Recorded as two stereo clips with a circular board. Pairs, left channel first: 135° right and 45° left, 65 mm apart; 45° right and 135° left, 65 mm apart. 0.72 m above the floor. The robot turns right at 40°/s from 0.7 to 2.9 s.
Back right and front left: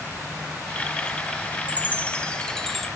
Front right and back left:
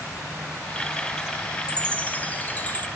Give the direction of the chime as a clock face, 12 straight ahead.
3 o'clock.